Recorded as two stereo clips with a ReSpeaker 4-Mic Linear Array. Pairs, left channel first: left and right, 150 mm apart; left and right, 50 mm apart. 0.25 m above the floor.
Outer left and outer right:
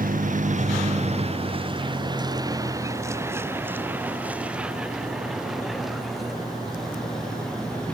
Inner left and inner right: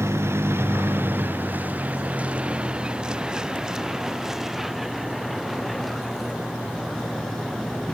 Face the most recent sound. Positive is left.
turn(degrees=5)  # may be behind; listen again after turning